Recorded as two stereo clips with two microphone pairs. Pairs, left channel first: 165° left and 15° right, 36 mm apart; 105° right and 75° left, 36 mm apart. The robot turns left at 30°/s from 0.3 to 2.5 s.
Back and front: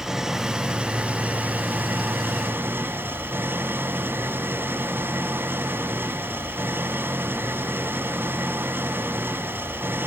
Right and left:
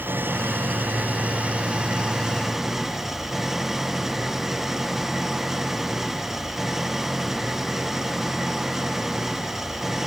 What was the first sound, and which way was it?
An engine running, 60° left.